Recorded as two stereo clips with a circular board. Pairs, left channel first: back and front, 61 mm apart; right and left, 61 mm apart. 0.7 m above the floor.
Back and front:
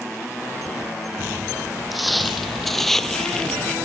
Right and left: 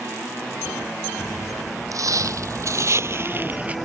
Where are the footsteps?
90° left; by 3.8 s 125° left.